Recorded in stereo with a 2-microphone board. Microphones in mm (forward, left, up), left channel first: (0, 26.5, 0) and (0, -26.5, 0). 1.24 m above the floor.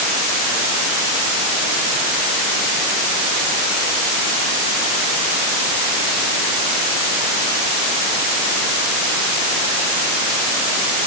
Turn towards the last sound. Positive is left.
No sound to turn to.